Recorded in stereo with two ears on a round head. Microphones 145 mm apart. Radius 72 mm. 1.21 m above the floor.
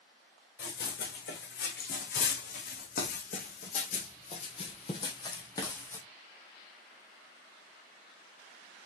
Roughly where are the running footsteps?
Left.